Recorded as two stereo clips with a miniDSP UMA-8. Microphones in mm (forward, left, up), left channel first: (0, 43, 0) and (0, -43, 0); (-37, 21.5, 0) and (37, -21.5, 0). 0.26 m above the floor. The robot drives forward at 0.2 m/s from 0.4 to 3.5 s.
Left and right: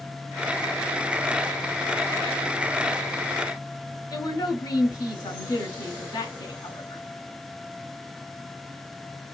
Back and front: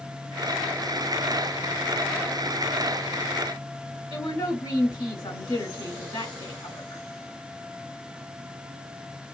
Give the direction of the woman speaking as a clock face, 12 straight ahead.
8 o'clock.